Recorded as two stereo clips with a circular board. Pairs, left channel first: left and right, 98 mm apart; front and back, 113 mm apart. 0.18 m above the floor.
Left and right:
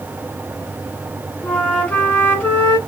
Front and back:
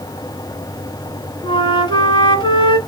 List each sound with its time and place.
1.4 s a flute: 20° left, 1.1 m